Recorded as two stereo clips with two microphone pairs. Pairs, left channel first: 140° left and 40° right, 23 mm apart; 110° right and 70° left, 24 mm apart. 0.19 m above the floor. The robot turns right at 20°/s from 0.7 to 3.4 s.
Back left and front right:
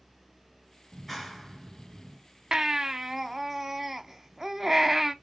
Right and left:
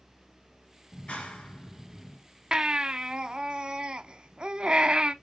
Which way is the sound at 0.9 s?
145° right.